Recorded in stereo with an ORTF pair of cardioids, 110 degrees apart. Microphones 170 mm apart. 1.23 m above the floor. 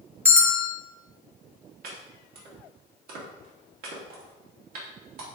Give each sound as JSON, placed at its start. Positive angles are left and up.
{"t": 0.2, "sound": "a bell", "azimuth_deg": -15, "distance_m": 1.6}
{"t": 1.8, "sound": "chopping", "azimuth_deg": -60, "distance_m": 2.5}